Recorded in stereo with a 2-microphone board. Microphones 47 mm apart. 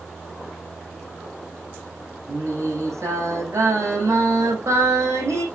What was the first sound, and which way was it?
Singing, 70° right (ahead or behind).